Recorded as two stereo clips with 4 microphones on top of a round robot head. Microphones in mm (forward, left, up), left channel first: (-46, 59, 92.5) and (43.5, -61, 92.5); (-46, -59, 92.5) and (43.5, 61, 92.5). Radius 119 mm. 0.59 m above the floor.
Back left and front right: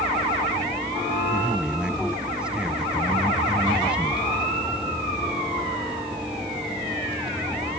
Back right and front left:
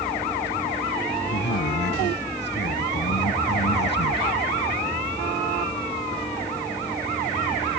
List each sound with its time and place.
1.3 s a man speaking: 140° right